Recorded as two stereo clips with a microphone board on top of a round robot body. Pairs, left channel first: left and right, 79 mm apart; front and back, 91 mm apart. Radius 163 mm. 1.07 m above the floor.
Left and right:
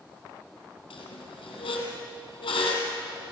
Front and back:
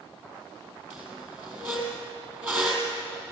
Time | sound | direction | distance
0.9 | a squeak | 110° left | 3 m